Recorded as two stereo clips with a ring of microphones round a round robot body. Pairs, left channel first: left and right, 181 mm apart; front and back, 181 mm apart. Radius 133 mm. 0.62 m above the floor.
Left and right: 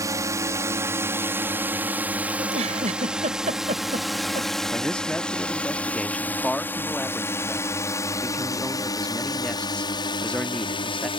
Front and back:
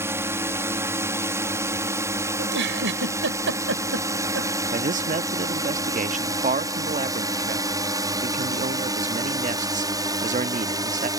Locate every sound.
0.0 s a drone: 130° right; by 11.2 s 130° left
2.4 s a giggle: 150° right
4.7 s a man speaking: 175° left